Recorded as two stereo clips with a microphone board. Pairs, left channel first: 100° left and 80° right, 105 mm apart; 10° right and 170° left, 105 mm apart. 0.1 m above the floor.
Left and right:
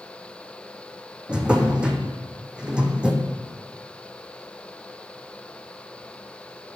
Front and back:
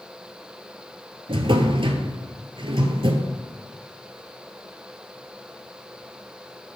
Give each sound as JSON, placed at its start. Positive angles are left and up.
{"t": 1.3, "sound": "a drawer", "azimuth_deg": -160, "distance_m": 0.9}